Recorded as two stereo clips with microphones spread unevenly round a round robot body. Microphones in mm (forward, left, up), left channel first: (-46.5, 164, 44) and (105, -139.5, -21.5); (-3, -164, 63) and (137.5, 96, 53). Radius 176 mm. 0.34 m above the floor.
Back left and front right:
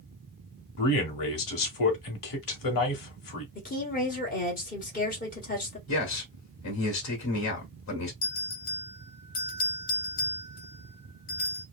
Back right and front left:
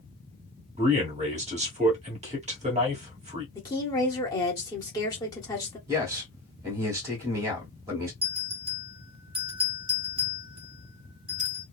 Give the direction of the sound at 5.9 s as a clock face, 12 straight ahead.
8 o'clock.